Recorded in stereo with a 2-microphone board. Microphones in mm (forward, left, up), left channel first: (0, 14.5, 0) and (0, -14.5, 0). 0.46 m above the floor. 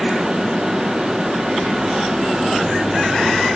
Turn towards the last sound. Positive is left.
No sound to turn to.